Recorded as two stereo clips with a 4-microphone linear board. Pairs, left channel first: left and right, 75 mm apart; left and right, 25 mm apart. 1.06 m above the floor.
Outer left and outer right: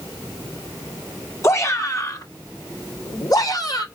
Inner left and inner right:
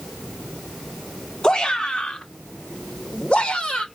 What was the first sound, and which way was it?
A shout, 40° left (ahead or behind).